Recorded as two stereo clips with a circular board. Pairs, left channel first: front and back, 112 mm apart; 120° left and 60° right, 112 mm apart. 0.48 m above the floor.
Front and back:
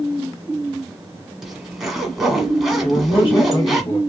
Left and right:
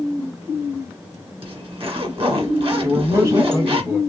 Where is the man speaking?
10° right, 1.8 m.